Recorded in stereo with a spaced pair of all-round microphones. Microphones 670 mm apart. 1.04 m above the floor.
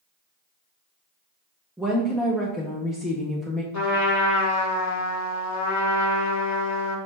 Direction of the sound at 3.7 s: 25° left (ahead or behind).